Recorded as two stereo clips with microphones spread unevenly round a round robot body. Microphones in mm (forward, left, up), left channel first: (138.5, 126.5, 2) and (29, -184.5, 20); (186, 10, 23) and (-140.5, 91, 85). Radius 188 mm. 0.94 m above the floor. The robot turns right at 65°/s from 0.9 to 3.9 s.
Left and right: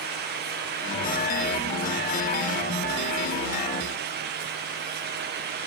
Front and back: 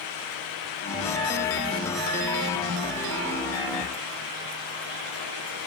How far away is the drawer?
No drawer in this recording.